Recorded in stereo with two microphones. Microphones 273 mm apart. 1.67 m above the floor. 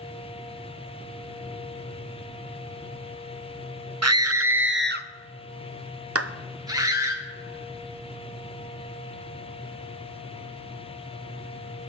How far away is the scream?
About 0.8 m.